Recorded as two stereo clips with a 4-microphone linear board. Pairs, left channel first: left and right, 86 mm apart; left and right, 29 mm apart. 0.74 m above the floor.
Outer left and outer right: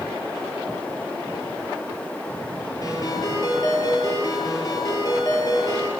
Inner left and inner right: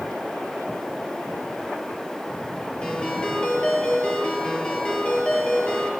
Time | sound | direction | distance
2.8 | a ringtone | 40° left (ahead or behind) | 8 m